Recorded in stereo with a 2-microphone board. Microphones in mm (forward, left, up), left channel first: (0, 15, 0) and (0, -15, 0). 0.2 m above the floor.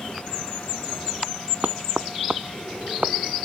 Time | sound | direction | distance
1.6 | knocking | 60° right (ahead or behind) | ?